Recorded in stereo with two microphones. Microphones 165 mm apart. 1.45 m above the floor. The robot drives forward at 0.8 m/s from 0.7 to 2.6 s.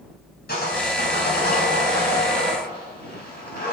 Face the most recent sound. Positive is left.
turn(degrees=75)  # may be behind; listen again after turning